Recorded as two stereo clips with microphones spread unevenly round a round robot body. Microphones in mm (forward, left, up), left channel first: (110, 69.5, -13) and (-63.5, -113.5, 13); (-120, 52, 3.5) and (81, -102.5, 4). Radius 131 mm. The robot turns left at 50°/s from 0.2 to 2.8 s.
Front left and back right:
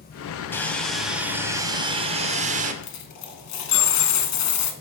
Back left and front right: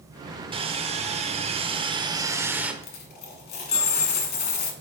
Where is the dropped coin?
85° left, 1.0 m.